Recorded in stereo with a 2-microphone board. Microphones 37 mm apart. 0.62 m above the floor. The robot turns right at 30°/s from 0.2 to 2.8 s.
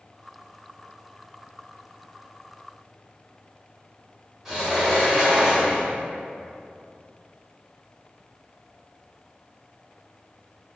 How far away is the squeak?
No squeak in this recording.